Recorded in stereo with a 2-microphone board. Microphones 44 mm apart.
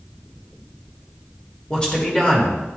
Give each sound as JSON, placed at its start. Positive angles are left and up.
{"t": 1.7, "sound": "a man speaking", "side_deg": 20, "distance_m": 1.6}